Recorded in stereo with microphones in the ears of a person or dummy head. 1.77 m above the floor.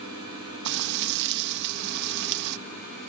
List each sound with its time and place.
0.7 s frying: 65° right (ahead or behind), 1.1 m